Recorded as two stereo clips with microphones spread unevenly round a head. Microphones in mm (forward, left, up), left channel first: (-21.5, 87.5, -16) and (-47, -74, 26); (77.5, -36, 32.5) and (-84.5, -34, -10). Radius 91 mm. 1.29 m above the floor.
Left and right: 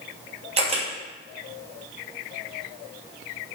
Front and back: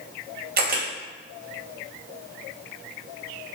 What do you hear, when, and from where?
0.6 s a camera shutter: 155° right, 2.5 m